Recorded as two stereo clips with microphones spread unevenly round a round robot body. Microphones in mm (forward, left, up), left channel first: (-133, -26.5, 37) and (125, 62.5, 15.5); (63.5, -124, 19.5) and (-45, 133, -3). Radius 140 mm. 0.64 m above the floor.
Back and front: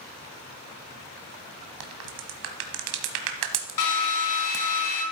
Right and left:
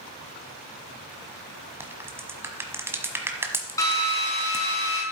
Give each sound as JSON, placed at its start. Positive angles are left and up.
{"t": 1.8, "sound": "a crack", "azimuth_deg": 30, "distance_m": 1.2}
{"t": 3.8, "sound": "a drill", "azimuth_deg": -145, "distance_m": 3.5}